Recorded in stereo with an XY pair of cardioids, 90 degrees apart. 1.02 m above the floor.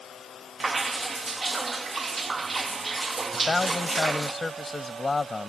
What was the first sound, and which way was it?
Dripping, 35° right.